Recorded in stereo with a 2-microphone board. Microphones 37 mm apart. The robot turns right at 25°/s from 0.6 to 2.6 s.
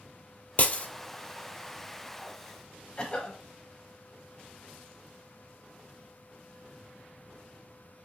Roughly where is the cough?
Left.